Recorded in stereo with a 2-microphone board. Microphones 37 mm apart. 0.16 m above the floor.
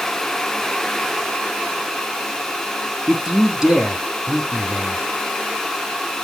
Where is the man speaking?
20° right (ahead or behind), 1.2 m.